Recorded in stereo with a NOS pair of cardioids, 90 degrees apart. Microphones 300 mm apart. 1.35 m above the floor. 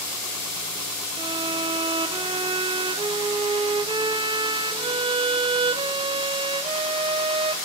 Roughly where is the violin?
Ahead.